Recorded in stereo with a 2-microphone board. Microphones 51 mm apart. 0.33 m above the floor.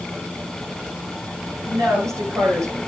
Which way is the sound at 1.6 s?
75° right (ahead or behind).